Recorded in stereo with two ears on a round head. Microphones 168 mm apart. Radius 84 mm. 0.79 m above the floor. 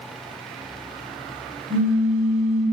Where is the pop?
40° right (ahead or behind), 0.6 m.